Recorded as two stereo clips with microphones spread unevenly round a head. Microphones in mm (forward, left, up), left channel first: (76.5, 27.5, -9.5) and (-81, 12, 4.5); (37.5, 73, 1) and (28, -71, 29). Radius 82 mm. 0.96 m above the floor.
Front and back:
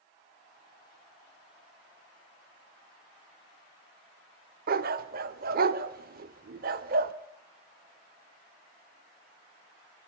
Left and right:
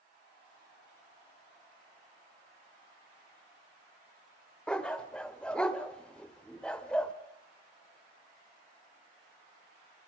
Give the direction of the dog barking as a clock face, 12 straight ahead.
6 o'clock.